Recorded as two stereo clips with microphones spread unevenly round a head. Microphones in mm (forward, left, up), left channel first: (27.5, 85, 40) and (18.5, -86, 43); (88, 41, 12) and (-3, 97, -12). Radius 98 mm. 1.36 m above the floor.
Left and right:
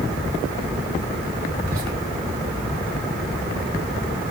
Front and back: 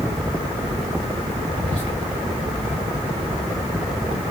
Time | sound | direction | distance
1.6 | whispering | 100° right | 2.5 m